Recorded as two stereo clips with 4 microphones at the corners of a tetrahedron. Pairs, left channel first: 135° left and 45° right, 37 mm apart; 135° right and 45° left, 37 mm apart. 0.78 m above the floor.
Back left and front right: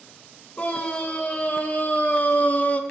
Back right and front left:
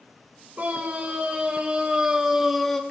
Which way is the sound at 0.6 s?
90° left.